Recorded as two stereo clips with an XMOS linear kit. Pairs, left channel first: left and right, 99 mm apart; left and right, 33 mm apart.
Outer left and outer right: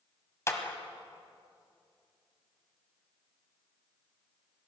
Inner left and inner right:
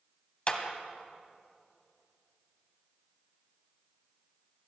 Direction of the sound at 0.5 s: 30° left (ahead or behind).